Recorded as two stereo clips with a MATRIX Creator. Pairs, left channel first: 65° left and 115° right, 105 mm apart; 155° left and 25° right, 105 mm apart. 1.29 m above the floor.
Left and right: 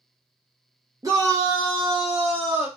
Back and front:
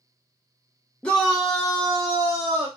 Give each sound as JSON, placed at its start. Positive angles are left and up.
{"t": 1.0, "sound": "a shout", "azimuth_deg": -135, "distance_m": 0.5}